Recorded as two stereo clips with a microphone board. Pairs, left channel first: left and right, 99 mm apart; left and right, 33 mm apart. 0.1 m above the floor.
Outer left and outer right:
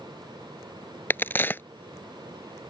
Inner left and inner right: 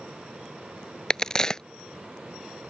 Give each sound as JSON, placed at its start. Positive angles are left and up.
{"t": 1.1, "sound": "a crack", "side_deg": 20}